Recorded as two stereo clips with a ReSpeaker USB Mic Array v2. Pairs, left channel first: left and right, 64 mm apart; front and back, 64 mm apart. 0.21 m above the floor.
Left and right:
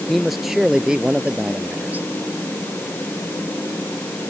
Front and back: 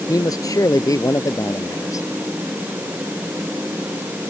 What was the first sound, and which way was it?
A man speaking, straight ahead.